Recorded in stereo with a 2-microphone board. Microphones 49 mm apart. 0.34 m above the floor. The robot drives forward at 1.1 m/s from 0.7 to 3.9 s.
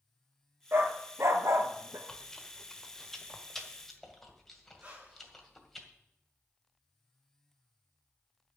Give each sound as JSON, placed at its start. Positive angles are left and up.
{"t": 0.7, "sound": "a dog barking", "side_deg": -50, "distance_m": 1.9}
{"t": 2.1, "sound": "chewing", "side_deg": 10, "distance_m": 1.3}
{"t": 4.8, "sound": "breathing", "side_deg": -25, "distance_m": 3.5}